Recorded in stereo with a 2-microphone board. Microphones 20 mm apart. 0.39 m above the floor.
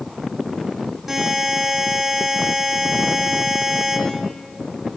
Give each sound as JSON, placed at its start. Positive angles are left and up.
{"t": 1.1, "sound": "a buzzer", "side_deg": -5, "distance_m": 4.0}